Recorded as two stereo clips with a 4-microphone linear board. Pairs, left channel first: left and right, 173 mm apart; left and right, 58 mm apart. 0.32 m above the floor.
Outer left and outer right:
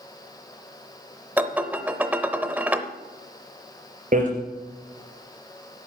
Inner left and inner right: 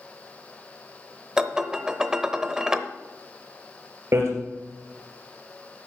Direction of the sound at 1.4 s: 10° right (ahead or behind).